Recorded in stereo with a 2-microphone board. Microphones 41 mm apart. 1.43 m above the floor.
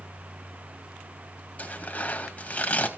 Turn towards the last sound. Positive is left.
turn(degrees=35)  # may be behind; listen again after turning